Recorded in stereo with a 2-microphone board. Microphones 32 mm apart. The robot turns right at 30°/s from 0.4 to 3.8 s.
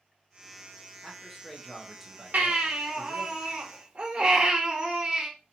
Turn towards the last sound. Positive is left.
turn(degrees=-40)